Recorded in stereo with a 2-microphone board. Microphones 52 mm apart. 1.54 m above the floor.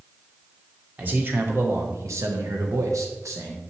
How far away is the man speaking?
About 1.4 m.